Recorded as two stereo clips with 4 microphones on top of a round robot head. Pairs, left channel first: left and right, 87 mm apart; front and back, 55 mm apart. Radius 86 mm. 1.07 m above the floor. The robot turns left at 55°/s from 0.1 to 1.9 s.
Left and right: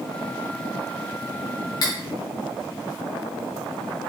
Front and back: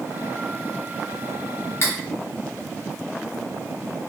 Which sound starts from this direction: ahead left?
Cutlery clinking, at 1.8 s.